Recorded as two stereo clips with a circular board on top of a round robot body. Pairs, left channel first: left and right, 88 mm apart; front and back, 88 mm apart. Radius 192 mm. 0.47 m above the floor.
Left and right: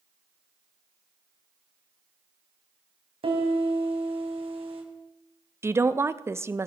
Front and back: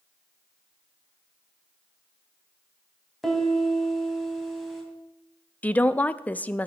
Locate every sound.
3.2 s a piano: 85° right, 3 m
5.6 s a woman speaking: 60° right, 0.8 m